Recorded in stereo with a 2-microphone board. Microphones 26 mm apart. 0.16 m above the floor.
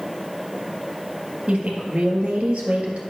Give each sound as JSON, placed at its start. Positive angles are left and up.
{"t": 1.5, "sound": "a woman speaking", "side_deg": -55, "distance_m": 2.5}